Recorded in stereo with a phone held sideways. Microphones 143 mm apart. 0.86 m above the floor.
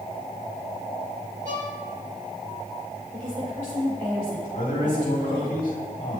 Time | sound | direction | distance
1.4 | a violin | 60° right (ahead or behind) | 1.4 m
3.1 | a woman speaking | 75° right (ahead or behind) | 2.5 m
4.5 | a man speaking | 80° left | 1.8 m